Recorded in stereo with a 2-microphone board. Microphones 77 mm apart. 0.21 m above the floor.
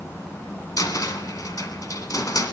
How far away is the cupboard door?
About 1.1 m.